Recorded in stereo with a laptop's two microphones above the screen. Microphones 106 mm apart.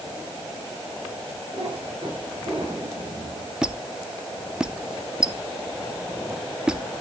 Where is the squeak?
5° right (ahead or behind), 0.5 m.